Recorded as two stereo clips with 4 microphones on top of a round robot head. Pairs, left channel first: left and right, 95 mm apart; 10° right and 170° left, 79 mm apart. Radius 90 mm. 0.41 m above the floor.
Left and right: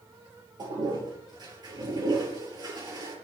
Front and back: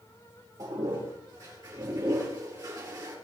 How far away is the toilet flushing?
About 4.5 m.